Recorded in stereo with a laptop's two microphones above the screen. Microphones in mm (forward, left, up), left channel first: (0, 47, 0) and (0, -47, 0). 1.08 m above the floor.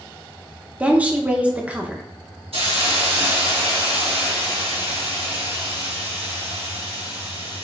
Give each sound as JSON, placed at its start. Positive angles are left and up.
{"t": 0.8, "sound": "a woman speaking", "side_deg": -15, "distance_m": 0.6}
{"t": 2.5, "sound": "a hiss", "side_deg": -75, "distance_m": 1.2}